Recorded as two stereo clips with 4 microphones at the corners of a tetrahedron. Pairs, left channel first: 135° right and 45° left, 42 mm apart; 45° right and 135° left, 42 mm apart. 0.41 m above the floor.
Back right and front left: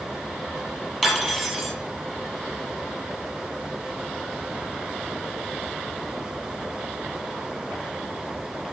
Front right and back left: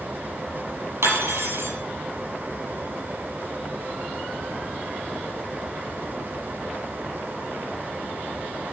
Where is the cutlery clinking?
140° left, 7 m.